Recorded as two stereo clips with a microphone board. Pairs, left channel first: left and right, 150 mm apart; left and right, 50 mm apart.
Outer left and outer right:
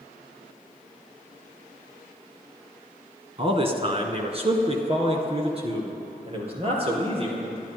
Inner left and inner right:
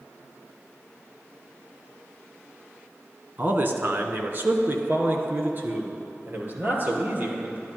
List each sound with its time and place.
3.4 s a man speaking: 40° right (ahead or behind), 1.4 m